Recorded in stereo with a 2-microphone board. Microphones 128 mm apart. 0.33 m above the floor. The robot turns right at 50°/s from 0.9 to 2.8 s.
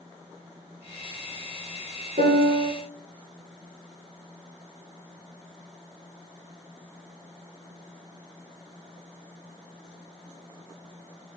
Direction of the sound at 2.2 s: 80° right.